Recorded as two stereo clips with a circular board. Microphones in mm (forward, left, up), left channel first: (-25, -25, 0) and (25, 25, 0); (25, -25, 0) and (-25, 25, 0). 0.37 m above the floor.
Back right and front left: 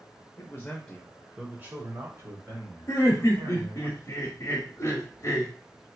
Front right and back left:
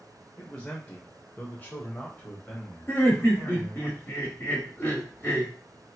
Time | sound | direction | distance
0.4 | a man speaking | 110° right | 1.0 m
2.9 | laughter | 100° right | 1.2 m